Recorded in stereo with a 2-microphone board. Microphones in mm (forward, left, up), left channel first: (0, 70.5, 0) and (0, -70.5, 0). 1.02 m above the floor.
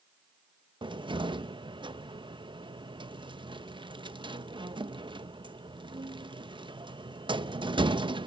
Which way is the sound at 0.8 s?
35° right (ahead or behind).